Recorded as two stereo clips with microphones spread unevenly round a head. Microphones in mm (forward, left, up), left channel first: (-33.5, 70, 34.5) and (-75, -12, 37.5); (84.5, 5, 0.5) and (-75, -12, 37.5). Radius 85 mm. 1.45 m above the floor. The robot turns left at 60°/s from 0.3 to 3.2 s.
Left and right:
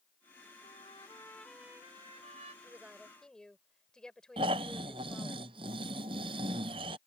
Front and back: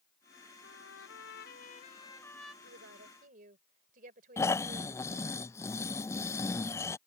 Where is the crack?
I don't hear a crack.